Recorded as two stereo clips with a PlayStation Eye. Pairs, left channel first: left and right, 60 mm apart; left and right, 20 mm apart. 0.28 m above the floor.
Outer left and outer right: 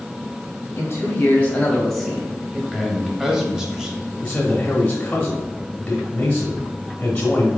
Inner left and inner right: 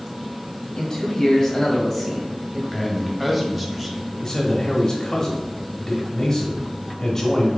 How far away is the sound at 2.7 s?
About 1.0 m.